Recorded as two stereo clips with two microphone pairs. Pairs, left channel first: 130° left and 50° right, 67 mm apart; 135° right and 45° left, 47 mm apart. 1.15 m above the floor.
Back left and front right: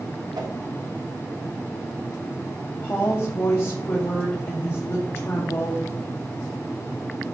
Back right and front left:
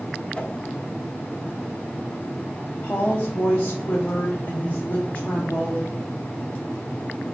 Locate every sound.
0.3 s a whoosh: 65° right, 1.1 m
2.8 s a woman speaking: straight behind, 1.3 m